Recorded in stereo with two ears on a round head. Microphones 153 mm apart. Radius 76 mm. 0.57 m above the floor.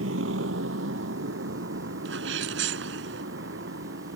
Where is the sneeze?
80° right.